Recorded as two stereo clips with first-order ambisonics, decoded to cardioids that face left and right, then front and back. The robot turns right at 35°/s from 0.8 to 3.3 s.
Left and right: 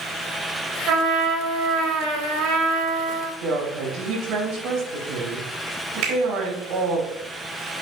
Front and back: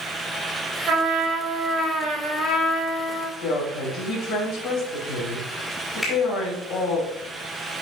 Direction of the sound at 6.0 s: 75° right.